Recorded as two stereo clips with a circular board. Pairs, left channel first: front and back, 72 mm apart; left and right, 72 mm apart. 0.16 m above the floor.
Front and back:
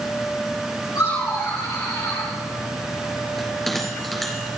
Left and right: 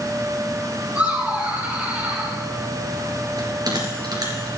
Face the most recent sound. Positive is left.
turn(degrees=-85)